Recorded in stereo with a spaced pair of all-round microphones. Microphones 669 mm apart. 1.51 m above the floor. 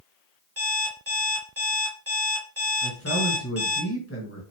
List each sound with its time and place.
0.6 s an alarm clock: 20° right (ahead or behind), 1.3 m
2.8 s a man speaking: 20° left (ahead or behind), 1.5 m